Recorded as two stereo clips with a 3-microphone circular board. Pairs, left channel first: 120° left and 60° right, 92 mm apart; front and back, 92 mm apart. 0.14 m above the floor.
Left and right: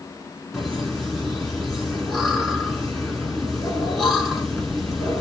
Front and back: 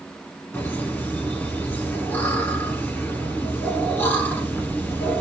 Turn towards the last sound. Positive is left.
turn(degrees=35)